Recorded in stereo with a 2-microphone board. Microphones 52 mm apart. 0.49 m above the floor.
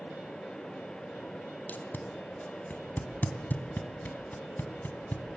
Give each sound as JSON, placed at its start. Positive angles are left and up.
{"t": 1.7, "sound": "tape being pulled", "side_deg": 35, "distance_m": 2.0}